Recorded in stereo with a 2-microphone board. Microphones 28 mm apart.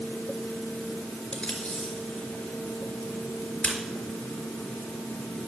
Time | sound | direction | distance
1.3 | tape being pulled | 35° left (ahead or behind) | 4 m